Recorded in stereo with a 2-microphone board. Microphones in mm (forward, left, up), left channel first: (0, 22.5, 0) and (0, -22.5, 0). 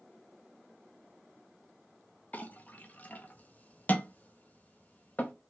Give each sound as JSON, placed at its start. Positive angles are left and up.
{"t": 2.3, "sound": "a clink", "side_deg": 30, "distance_m": 0.5}